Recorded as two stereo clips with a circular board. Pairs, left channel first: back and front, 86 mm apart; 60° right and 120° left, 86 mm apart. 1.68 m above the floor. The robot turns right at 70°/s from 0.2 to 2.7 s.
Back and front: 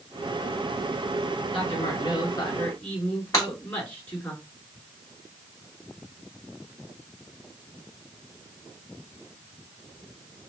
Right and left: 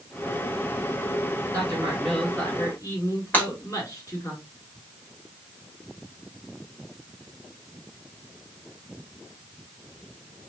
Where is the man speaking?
165° left, 3 m; by 4.3 s 110° right, 3 m.